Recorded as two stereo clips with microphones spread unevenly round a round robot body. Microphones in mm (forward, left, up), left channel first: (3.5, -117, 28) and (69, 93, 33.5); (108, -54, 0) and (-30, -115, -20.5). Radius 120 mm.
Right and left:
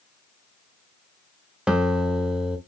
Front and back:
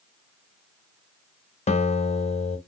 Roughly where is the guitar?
Ahead.